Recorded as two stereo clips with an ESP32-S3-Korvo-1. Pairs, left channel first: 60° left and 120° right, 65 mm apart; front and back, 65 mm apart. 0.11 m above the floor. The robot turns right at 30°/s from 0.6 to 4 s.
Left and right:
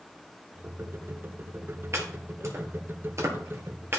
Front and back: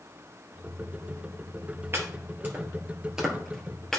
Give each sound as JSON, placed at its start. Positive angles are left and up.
{"t": 1.9, "sound": "chopping", "azimuth_deg": -145, "distance_m": 1.8}